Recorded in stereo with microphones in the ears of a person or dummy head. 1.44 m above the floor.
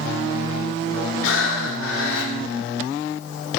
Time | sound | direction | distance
1.2 | breathing | 80° left | 0.7 m